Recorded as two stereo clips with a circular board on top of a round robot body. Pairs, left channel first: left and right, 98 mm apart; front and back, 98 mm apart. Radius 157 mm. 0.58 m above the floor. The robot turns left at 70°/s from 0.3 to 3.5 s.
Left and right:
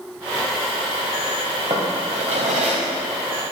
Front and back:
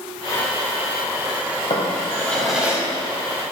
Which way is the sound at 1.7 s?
35° right.